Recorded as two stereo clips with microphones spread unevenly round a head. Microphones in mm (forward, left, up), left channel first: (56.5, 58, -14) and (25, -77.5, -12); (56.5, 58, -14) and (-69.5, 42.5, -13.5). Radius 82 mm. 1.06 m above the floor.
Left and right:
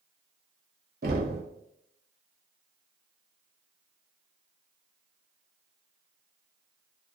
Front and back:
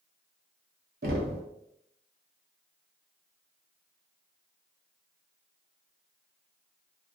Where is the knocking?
140° right, 0.6 m.